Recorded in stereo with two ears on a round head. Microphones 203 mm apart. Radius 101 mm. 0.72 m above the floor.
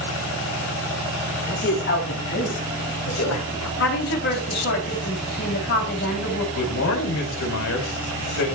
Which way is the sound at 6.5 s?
60° left (ahead or behind).